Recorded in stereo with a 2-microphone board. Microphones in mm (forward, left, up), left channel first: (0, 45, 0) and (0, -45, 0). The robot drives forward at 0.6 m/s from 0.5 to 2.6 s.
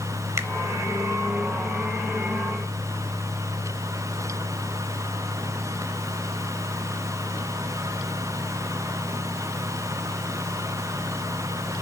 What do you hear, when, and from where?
0.4 s a finger snap: 30° right (ahead or behind), 0.8 m